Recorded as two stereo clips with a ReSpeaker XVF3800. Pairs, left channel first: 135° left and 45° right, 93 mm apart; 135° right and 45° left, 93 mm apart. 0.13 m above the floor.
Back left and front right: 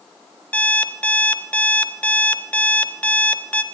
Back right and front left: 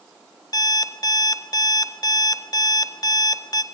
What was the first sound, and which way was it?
An alarm clock, 155° right.